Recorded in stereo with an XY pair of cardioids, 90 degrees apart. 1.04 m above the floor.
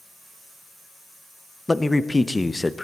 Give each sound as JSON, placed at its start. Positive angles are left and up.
{"t": 1.7, "sound": "a man speaking", "azimuth_deg": 15, "distance_m": 0.5}